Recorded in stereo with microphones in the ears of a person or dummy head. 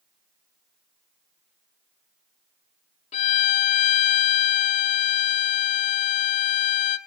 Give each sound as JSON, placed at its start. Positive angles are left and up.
{"t": 3.1, "sound": "a violin", "side_deg": 35, "distance_m": 0.8}